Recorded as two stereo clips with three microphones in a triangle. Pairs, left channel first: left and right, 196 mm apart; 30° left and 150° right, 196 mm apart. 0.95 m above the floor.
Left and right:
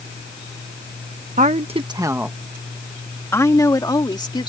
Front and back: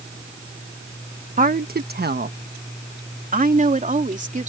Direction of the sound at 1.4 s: 120° right.